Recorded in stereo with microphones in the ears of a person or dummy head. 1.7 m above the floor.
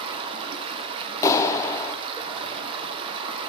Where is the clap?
15° left (ahead or behind), 0.5 m.